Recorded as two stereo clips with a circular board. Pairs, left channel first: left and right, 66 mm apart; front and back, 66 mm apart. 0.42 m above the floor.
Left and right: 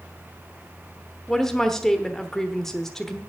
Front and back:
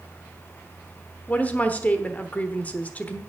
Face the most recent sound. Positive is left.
turn(degrees=20)